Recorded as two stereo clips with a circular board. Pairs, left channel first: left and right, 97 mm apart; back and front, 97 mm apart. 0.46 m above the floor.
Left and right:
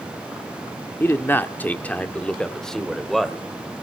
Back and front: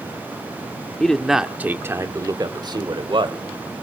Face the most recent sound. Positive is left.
turn(degrees=0)